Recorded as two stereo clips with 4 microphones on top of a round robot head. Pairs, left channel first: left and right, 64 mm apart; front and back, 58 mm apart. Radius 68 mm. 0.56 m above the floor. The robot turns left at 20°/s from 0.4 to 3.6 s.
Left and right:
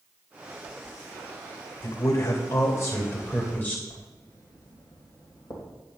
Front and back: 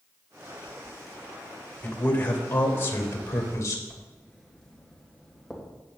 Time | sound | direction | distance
1.8 | a man speaking | 65° left | 2.5 m
3.9 | writing | 80° left | 3 m